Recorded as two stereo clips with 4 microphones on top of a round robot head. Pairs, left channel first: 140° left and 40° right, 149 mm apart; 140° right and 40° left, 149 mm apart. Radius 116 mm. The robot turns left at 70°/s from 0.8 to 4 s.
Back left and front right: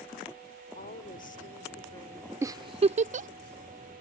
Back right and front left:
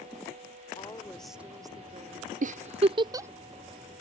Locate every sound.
0.8 s a woman speaking: 160° left; by 2.3 s 55° left
2.4 s a giggle: 30° left; by 3.3 s 35° right